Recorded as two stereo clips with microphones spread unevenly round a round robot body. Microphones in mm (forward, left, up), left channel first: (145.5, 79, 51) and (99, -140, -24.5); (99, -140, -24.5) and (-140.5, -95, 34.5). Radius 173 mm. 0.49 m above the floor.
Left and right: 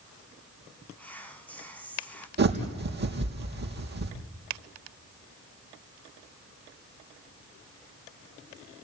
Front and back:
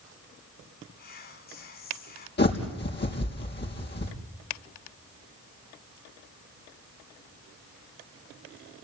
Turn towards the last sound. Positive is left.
turn(degrees=-60)